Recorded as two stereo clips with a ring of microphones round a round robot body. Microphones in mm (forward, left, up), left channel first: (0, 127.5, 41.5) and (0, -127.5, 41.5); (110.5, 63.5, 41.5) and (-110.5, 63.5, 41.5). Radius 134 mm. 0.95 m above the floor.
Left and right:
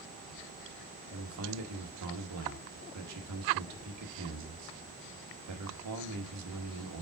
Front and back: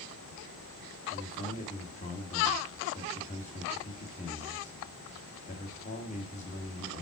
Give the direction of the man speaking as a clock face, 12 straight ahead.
2 o'clock.